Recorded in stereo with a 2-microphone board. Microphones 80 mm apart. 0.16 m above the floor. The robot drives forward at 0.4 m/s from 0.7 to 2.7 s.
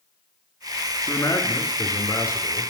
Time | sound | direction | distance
1.0 | a man speaking | 35° left (ahead or behind) | 2.5 m